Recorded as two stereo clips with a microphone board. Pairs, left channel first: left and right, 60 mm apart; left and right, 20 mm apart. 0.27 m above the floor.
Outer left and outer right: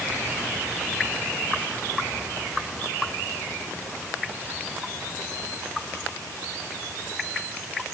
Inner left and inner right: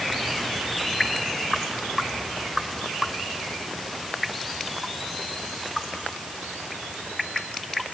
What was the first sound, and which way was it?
Only background noise.